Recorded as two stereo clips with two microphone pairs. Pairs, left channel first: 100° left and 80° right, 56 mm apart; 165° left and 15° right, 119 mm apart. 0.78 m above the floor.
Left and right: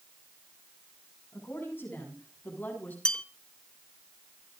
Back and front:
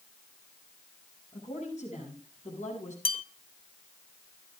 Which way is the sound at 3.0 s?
175° left.